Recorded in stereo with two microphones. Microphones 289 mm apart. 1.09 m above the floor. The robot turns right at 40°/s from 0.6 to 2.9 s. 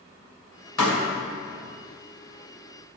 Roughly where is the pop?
Left.